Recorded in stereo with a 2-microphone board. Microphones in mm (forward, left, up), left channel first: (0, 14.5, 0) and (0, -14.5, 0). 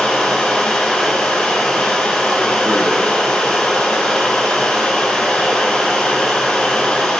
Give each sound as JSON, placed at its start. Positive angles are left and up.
{"t": 0.0, "sound": "running water", "side_deg": 45, "distance_m": 7.0}